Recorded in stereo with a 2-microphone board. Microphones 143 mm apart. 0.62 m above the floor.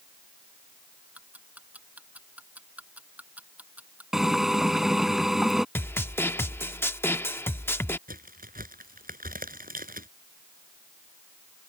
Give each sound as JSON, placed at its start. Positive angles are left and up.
{"t": 1.1, "sound": "ticking", "side_deg": -10}
{"t": 4.1, "sound": "a drill", "side_deg": -5}
{"t": 5.8, "sound": "a snare drum", "side_deg": 15}
{"t": 8.1, "sound": "a crack", "side_deg": -85}